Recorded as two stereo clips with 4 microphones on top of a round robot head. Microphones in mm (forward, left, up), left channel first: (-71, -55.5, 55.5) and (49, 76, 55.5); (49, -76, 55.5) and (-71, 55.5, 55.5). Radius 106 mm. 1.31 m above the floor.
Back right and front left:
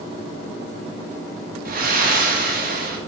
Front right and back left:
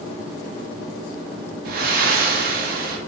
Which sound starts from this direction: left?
Breathing, at 1.6 s.